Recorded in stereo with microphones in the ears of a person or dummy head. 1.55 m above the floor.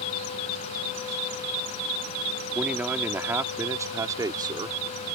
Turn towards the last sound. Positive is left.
turn(degrees=-25)  # may be behind; listen again after turning